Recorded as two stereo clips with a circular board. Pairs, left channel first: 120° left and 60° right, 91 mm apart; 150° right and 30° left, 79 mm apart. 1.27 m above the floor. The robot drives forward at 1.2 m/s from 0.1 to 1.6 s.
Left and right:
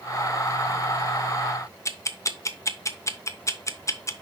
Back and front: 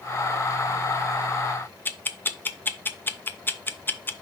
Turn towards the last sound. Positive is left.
turn(degrees=160)